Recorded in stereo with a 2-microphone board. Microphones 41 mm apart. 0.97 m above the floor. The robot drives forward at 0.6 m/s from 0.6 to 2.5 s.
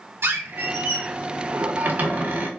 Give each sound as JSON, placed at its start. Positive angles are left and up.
{"t": 0.2, "sound": "a squeak", "side_deg": -75, "distance_m": 1.6}